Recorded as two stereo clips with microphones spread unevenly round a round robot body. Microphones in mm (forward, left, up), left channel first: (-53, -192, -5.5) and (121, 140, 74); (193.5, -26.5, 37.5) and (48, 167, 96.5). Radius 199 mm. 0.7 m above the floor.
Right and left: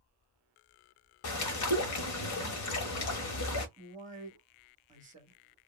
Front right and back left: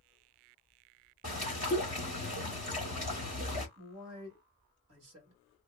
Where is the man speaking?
140° left, 1.8 m.